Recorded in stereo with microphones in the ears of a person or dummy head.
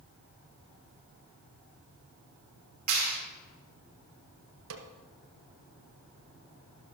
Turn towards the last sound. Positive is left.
turn(degrees=-75)  # may be behind; listen again after turning